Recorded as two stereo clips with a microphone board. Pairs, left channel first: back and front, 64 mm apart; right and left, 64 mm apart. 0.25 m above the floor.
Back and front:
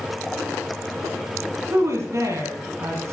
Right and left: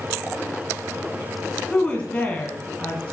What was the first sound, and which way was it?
A woman speaking, 20° right.